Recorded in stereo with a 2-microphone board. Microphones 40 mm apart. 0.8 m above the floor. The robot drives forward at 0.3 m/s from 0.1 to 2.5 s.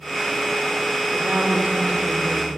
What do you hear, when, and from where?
1.1 s a woman speaking: 30° right (ahead or behind), 2.0 m; by 2.5 s 25° right (ahead or behind), 2.5 m